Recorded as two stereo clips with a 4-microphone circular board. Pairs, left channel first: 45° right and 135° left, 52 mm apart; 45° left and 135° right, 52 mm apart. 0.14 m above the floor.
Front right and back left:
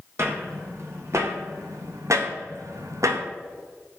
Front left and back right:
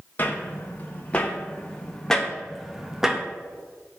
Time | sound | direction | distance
0.2 | footsteps | 100° left | 3.5 m